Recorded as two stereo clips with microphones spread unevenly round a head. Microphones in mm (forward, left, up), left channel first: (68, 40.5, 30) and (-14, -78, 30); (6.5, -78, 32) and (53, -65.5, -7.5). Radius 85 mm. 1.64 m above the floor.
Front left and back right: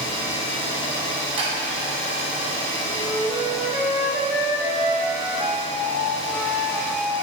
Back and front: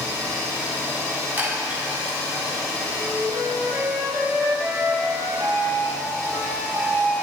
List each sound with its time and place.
0.0 s an engine running: 60° left, 2 m
1.4 s a chime: 80° right, 1.3 m
2.9 s a flute: 55° right, 1.1 m